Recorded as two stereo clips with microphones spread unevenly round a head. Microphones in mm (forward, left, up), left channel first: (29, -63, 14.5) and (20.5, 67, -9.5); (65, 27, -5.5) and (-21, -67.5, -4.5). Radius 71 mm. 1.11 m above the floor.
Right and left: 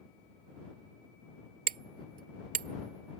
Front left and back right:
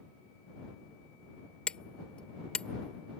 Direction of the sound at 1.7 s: 130° left.